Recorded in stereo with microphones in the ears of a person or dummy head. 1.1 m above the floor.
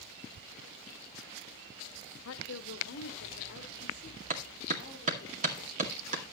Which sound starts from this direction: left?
A woman speaking, at 2.2 s.